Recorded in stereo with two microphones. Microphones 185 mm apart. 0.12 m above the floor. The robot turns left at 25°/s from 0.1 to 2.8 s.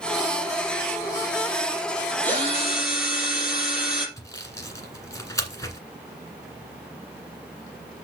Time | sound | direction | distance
2.2 | a drill | 10° left (ahead or behind) | 4 m
4.2 | sawing | 20° left (ahead or behind) | 1.6 m